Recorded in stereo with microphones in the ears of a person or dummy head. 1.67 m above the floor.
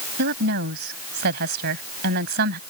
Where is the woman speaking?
60° right (ahead or behind).